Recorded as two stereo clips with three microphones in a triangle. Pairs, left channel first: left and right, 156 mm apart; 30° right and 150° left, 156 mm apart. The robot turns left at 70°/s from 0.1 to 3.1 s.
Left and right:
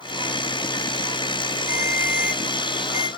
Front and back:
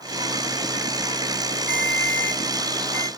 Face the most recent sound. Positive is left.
turn(degrees=35)